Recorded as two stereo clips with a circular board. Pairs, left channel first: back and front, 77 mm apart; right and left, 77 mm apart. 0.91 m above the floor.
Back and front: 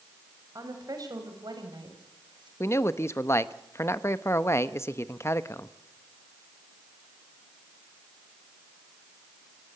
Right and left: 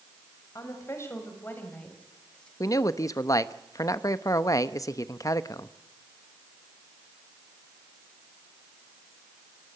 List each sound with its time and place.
0.6 s a woman speaking: 45° right, 5 m; by 2.5 s 10° right, 5.5 m
2.6 s a man speaking: 130° right, 0.8 m